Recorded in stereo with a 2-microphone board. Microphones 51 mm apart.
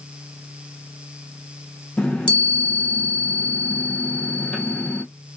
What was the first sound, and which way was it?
A chime, 20° left (ahead or behind).